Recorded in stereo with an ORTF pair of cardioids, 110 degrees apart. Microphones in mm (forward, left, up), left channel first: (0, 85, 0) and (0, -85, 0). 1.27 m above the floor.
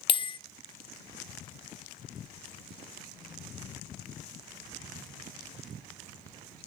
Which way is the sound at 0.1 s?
30° left.